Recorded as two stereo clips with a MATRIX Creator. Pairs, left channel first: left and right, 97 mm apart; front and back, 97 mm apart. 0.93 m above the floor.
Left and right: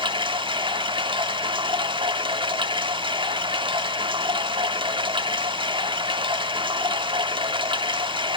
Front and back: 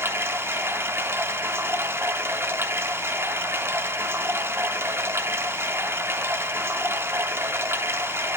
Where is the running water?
115° right, 1.1 m.